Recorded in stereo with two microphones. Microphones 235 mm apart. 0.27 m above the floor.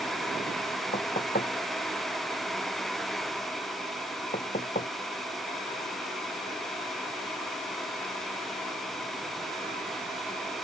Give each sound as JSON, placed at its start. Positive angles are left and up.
{"t": 0.9, "sound": "knocking", "side_deg": 35}